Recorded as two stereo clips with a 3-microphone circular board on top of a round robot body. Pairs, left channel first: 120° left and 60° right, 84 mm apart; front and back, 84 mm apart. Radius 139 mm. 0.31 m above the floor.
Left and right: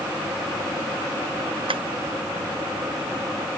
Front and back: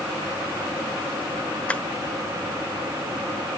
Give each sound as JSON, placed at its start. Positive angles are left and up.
{"t": 1.7, "sound": "tapping", "azimuth_deg": -75}